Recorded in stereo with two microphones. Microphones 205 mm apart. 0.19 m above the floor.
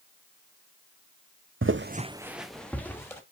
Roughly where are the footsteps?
Right.